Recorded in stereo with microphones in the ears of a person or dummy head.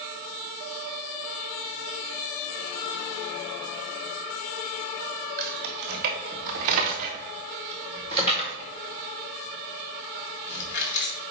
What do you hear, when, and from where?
5.4 s keys jangling: 55° right (ahead or behind), 1.6 m; by 11.2 s 60° left (ahead or behind), 1.8 m